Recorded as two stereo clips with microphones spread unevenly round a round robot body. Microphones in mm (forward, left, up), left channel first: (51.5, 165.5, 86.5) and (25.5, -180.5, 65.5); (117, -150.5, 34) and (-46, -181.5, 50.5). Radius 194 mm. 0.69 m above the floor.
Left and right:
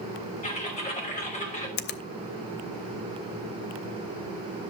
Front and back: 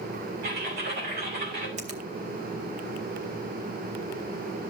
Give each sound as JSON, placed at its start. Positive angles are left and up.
{"t": 0.4, "sound": "typing on a keyboard", "azimuth_deg": 155, "distance_m": 3.0}
{"t": 1.8, "sound": "a finger snap", "azimuth_deg": 145, "distance_m": 0.6}